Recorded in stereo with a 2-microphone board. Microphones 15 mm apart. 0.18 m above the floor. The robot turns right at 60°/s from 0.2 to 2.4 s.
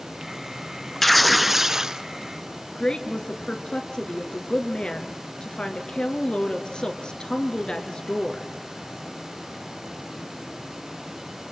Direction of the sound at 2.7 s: 65° left (ahead or behind).